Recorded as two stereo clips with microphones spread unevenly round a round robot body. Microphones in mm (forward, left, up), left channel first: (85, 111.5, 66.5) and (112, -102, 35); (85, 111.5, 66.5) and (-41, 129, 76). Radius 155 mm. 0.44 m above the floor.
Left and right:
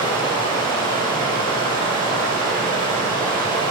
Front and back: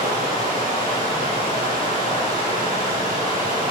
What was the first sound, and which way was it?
Running water, 165° right.